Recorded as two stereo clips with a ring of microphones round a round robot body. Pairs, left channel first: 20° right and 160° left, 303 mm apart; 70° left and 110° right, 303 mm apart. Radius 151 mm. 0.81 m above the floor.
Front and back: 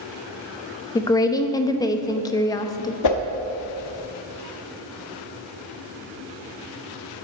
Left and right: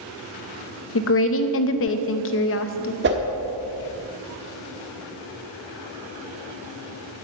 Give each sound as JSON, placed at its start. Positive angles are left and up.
{"t": 0.9, "sound": "a woman speaking", "azimuth_deg": 50, "distance_m": 0.8}
{"t": 3.0, "sound": "a whoosh", "azimuth_deg": -55, "distance_m": 1.0}